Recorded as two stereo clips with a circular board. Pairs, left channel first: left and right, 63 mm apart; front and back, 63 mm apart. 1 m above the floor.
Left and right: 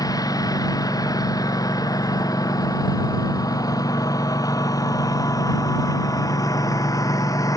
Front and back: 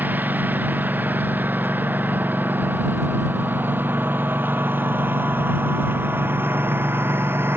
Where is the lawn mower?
115° left; by 7.6 s 125° left.